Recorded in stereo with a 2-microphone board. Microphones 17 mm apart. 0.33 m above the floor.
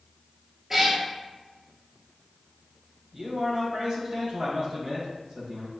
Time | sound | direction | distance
0.7 | a cat meowing | 20° right (ahead or behind) | 1.1 m
3.1 | a man speaking | 50° right (ahead or behind) | 1.4 m